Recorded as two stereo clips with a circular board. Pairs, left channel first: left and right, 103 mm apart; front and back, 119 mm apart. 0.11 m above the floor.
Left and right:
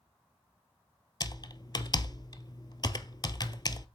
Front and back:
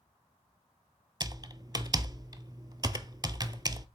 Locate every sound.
1.2 s typing on a keyboard: 130° left, 0.6 m